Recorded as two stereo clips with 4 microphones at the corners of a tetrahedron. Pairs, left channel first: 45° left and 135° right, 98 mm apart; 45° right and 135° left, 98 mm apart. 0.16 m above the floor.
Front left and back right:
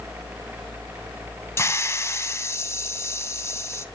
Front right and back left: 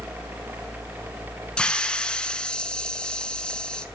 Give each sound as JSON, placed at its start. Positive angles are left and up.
{"t": 1.6, "sound": "a hiss", "azimuth_deg": 25, "distance_m": 0.5}